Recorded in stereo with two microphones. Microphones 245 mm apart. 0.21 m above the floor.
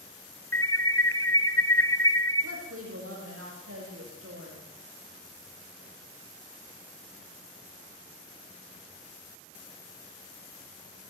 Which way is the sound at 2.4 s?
65° right (ahead or behind).